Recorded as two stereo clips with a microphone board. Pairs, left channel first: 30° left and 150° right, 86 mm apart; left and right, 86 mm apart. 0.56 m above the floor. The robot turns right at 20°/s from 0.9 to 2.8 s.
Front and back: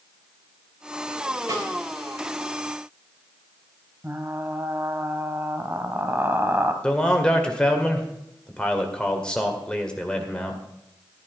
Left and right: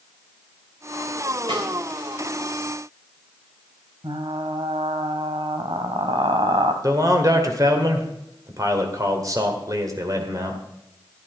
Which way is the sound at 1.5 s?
105° right.